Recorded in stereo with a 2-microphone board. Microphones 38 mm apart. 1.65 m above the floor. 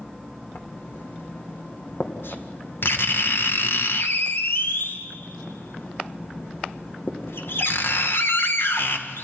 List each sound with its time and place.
0.6 s writing: 80° left, 1.9 m